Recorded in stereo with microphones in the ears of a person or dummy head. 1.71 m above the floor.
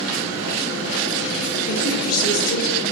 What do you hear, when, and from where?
1.7 s a woman speaking: 65° left (ahead or behind), 2.5 m